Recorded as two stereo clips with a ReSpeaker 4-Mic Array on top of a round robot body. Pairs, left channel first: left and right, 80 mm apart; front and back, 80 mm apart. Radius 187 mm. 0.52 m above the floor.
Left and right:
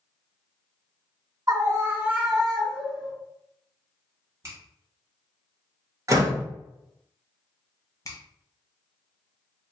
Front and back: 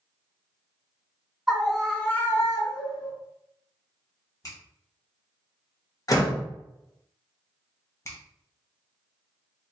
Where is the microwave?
I don't hear a microwave.